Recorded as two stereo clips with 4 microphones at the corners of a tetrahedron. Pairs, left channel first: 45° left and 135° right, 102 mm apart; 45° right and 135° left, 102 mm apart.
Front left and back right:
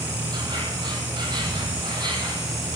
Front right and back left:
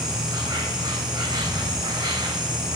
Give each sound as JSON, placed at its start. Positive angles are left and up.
{"t": 0.0, "sound": "an insect", "azimuth_deg": 180, "distance_m": 2.5}